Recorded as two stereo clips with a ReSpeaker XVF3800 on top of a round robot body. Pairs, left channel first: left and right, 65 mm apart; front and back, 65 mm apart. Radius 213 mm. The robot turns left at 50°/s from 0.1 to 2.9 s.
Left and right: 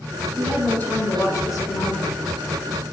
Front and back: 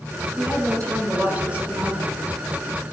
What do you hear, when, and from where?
0.4 s a woman speaking: 165° left, 2.5 m; by 2.8 s 40° left, 2.5 m